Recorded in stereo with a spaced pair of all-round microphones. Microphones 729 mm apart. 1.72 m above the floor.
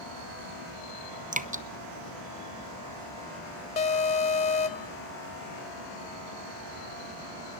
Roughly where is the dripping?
Centre.